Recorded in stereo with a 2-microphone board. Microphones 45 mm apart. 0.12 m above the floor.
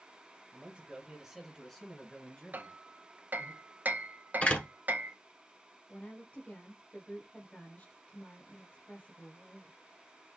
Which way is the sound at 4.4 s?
25° left (ahead or behind).